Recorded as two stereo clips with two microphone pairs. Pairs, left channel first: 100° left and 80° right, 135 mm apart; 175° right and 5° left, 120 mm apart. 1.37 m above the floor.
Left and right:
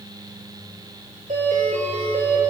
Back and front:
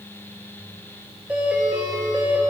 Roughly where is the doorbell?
Right.